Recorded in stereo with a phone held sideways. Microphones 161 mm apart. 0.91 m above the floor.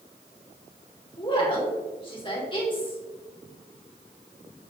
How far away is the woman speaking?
About 2.5 m.